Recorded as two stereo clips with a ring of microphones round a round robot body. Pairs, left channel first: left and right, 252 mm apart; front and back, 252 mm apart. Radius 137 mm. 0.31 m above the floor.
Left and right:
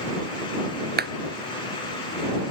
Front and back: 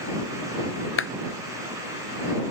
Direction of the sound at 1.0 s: 40° right.